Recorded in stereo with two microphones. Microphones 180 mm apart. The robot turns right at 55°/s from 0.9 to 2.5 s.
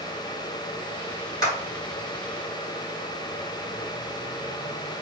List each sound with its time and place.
1.4 s a clap: 20° left (ahead or behind), 3 m; by 1.6 s 30° left (ahead or behind), 3 m